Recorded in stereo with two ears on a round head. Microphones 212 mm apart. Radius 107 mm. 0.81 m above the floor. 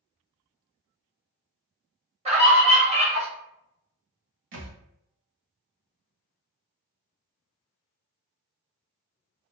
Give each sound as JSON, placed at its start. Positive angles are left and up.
{"t": 2.2, "sound": "a scream", "side_deg": -25, "distance_m": 0.9}
{"t": 4.5, "sound": "a thud", "side_deg": -55, "distance_m": 0.9}